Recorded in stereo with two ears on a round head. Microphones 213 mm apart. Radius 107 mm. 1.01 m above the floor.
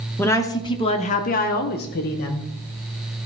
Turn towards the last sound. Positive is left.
turn(degrees=40)  # may be behind; listen again after turning